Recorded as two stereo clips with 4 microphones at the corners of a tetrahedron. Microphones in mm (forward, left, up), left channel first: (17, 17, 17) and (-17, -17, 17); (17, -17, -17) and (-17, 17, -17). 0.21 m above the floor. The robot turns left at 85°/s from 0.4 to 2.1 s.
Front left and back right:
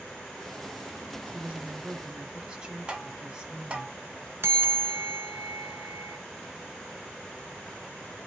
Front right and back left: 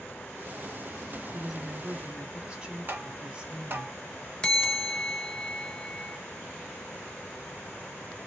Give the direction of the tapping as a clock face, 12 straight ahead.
7 o'clock.